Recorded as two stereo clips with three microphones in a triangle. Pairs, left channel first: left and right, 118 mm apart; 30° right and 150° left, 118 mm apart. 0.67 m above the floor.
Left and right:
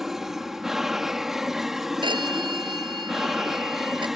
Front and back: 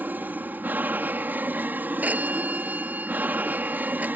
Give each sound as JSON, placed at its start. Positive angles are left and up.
{"t": 0.0, "sound": "an aircraft", "azimuth_deg": -170}
{"t": 2.0, "sound": "a phone ringing", "azimuth_deg": -135}